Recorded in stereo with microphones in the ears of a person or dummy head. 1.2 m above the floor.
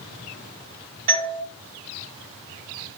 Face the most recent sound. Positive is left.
turn(degrees=-40)  # may be behind; listen again after turning